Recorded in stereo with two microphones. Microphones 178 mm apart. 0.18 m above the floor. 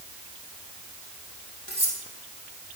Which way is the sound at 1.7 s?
80° right.